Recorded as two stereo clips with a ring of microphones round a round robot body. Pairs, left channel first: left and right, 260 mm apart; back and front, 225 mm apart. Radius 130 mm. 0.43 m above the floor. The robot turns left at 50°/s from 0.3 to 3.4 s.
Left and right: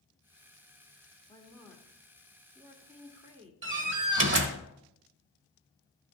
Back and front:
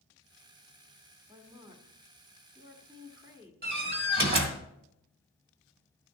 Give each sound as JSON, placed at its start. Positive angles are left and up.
{"t": 1.3, "sound": "a woman speaking", "azimuth_deg": 45, "distance_m": 1.4}
{"t": 3.6, "sound": "a door slam", "azimuth_deg": -50, "distance_m": 1.3}